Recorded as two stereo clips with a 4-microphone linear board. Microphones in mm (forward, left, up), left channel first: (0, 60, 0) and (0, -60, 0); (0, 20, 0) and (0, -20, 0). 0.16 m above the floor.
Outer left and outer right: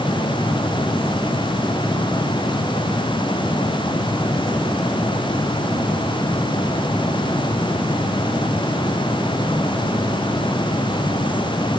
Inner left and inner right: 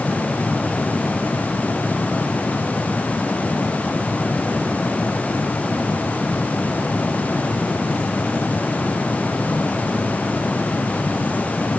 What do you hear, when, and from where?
Only background noise.